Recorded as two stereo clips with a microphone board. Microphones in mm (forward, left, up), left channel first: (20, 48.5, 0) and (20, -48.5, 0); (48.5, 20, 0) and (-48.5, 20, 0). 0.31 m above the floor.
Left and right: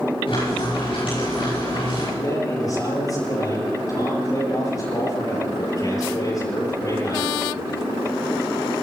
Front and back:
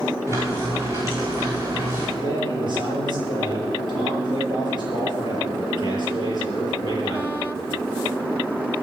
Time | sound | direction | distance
0.3 | frying | 120° left | 10 m
2.2 | a man speaking | 140° left | 8 m